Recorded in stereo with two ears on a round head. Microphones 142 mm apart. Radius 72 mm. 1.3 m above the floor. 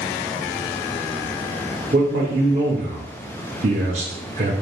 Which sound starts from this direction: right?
A man speaking, at 1.9 s.